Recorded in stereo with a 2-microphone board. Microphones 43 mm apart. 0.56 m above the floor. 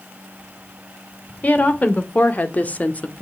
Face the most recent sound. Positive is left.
turn(degrees=30)  # may be behind; listen again after turning